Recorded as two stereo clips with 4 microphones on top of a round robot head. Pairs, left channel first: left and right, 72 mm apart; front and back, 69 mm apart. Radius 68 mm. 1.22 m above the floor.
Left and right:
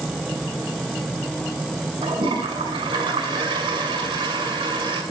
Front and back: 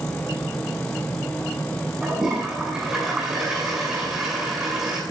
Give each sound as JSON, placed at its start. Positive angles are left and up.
{"t": 2.0, "sound": "a toilet flushing", "azimuth_deg": -95, "distance_m": 6.0}